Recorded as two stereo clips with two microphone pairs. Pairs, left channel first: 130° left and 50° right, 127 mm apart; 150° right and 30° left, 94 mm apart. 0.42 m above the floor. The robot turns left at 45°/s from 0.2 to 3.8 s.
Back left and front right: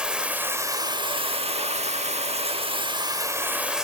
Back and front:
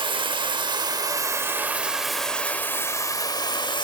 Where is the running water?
30° left, 0.8 m; by 3.9 s 130° right, 0.8 m.